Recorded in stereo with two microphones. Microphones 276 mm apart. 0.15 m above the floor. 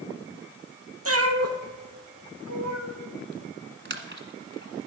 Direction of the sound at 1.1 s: 55° right (ahead or behind).